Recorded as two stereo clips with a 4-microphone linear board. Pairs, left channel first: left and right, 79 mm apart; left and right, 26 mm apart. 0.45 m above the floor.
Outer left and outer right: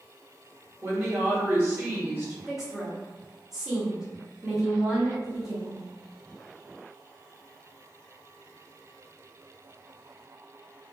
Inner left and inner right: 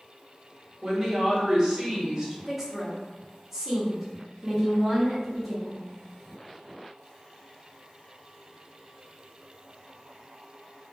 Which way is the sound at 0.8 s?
30° right (ahead or behind).